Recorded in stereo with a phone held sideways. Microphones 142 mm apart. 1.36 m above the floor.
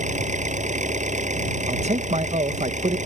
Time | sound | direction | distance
0.0 | an engine running | 60° right (ahead or behind) | ?
1.7 | a man speaking | 55° right (ahead or behind) | ?